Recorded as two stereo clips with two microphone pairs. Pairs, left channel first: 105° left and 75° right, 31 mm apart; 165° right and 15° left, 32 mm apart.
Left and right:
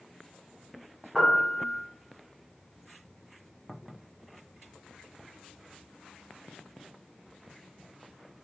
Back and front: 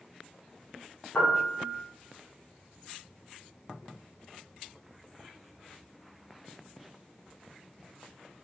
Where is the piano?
150° right, 1.4 m.